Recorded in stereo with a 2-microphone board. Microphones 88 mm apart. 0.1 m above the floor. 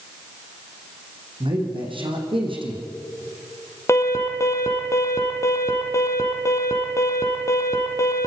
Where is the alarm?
35° left (ahead or behind), 2.0 m.